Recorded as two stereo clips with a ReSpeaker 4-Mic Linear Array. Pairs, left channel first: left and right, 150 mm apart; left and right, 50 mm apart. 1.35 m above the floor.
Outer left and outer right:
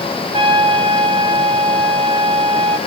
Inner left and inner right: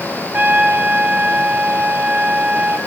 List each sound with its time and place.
0.3 s a trumpet: 35° right (ahead or behind), 5.5 m